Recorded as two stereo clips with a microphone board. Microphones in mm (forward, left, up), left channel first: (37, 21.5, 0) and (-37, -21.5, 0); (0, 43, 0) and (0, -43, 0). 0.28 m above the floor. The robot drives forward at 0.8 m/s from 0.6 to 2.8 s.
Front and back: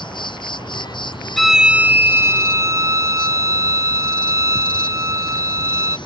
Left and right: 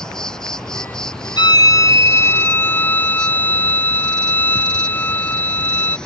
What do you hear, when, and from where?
0.0 s an insect: 10° left
1.4 s a violin: 120° left; by 6.0 s 160° left